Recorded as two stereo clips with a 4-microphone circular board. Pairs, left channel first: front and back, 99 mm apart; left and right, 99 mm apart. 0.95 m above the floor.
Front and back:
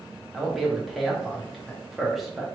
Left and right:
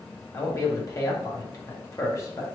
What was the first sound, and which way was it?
A man speaking, 90° left.